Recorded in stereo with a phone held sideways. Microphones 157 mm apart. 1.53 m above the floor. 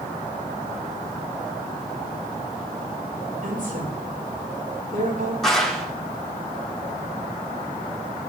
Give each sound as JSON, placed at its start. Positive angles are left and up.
{"t": 3.4, "sound": "a woman speaking", "side_deg": -65, "distance_m": 6.5}
{"t": 5.4, "sound": "a clap", "side_deg": 5, "distance_m": 4.5}